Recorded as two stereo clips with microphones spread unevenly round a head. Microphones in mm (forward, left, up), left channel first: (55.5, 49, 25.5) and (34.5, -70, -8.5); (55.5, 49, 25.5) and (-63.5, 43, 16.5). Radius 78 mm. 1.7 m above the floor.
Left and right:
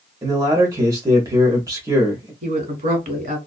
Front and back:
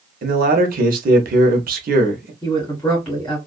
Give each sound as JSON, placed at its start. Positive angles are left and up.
{"t": 0.2, "sound": "a man speaking", "azimuth_deg": -170, "distance_m": 0.7}
{"t": 2.4, "sound": "a woman speaking", "azimuth_deg": -80, "distance_m": 1.5}